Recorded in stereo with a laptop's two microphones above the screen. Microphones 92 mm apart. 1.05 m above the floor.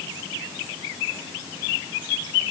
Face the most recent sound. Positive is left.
No sound to turn to.